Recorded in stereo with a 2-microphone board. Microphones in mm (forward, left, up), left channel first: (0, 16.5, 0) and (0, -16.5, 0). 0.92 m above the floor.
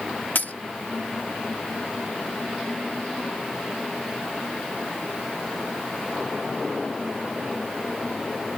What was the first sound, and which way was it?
A dropped coin, 60° left (ahead or behind).